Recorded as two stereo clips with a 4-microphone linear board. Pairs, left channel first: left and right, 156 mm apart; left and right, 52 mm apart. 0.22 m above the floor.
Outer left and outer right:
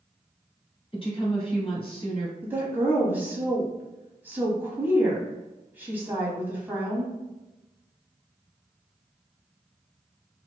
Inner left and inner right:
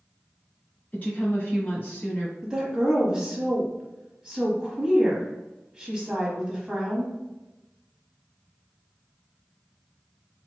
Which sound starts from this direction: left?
A woman speaking, at 0.9 s.